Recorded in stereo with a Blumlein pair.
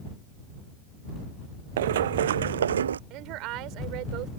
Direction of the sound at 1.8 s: 60° right.